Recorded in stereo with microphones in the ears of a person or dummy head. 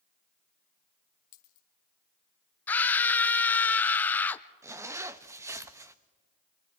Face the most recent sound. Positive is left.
turn(degrees=-15)  # may be behind; listen again after turning